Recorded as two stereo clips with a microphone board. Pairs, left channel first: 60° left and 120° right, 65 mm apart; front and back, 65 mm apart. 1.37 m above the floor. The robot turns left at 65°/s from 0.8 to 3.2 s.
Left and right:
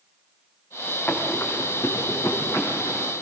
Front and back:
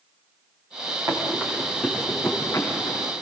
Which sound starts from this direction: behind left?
Running footsteps, at 1.1 s.